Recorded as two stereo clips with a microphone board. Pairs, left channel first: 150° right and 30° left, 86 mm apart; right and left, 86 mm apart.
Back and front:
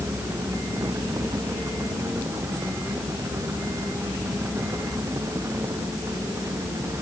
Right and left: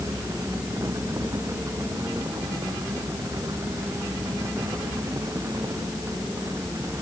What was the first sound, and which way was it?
Only background noise.